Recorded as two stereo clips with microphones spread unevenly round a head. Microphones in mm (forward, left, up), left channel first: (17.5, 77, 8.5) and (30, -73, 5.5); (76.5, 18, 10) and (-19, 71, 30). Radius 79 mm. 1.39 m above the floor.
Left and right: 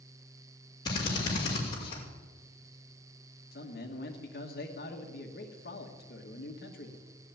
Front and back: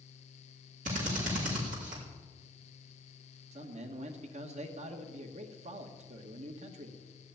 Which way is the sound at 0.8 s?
160° left.